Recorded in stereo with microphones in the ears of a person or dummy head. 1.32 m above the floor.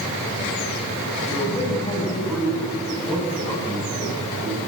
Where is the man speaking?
15° left (ahead or behind), 7 m; by 4.6 s centre (ahead or behind), 8.5 m.